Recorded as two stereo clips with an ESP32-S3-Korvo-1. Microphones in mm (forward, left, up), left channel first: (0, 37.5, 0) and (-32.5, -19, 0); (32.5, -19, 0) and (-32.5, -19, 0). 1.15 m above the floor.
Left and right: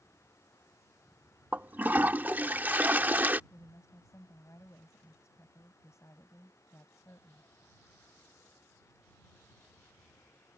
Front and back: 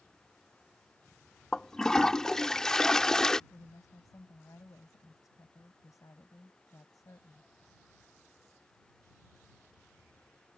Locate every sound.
1.5 s a toilet flushing: 75° right
3.5 s a woman speaking: 25° left